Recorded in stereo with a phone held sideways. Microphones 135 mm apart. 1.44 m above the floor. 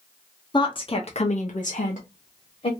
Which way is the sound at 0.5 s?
30° left (ahead or behind).